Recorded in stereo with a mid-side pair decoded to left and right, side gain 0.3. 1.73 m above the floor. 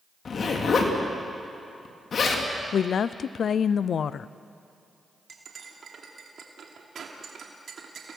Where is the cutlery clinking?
70° right, 2.5 m.